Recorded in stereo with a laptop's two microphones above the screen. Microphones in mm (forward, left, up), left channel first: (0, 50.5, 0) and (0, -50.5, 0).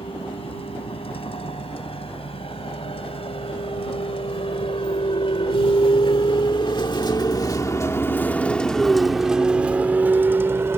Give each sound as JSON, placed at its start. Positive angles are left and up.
{"t": 0.0, "sound": "a vehicle", "side_deg": 80}